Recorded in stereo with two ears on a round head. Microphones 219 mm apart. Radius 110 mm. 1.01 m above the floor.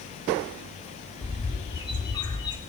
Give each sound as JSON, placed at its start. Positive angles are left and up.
{"t": 1.2, "sound": "a bird", "side_deg": 20, "distance_m": 1.6}